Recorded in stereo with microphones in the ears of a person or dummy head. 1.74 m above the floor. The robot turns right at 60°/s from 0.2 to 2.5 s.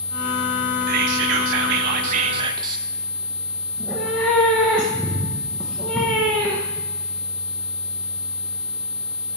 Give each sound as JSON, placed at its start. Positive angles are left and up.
{"t": 0.9, "sound": "whispering", "azimuth_deg": -125, "distance_m": 0.9}
{"t": 3.7, "sound": "a cat meowing", "side_deg": 10, "distance_m": 1.0}